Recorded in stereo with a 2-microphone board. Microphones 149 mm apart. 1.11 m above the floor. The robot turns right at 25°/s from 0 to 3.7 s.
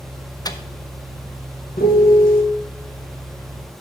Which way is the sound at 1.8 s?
75° left (ahead or behind).